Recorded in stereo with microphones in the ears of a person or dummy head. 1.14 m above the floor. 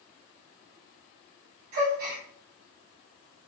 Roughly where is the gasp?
Right.